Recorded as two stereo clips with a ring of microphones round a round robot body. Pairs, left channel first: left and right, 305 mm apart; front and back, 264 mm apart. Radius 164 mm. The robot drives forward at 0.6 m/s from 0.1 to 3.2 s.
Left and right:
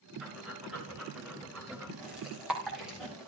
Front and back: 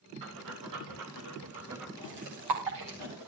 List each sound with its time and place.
0.2 s breathing: 175° right, 6.5 m; by 3.3 s straight behind, 8.5 m